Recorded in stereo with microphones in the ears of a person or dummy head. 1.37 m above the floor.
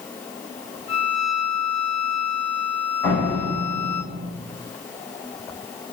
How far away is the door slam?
About 6.5 m.